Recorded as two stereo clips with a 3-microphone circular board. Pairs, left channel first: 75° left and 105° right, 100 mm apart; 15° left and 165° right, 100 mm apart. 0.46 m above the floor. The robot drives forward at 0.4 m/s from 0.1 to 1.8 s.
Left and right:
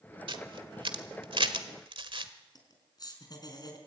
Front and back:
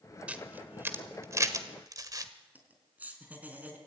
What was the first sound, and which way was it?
A camera shutter, 90° right.